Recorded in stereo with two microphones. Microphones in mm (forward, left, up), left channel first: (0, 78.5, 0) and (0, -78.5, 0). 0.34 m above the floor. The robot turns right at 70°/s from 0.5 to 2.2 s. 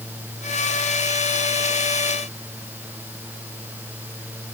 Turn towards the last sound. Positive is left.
No sound to turn to.